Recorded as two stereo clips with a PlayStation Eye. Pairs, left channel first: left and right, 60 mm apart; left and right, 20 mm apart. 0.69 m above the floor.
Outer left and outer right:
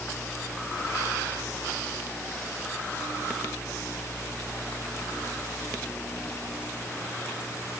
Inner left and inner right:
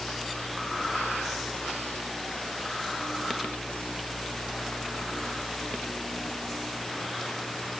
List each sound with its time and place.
Only background noise.